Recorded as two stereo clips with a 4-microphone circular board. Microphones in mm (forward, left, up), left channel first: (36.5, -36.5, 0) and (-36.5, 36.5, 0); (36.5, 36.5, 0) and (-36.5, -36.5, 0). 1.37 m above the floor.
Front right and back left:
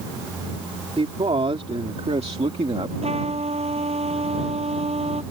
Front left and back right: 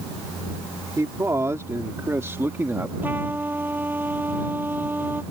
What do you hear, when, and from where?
1.0 s a man speaking: 160° left; by 2.9 s 155° left
3.0 s a trumpet: 150° left